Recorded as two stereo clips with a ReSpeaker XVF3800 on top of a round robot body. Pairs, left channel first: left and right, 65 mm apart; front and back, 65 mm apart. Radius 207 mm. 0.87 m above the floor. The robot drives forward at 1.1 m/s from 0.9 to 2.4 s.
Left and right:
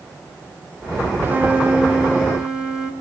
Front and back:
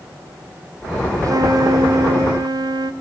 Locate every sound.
1.2 s a flute: 150° right, 0.8 m; by 2.9 s 170° right, 2.0 m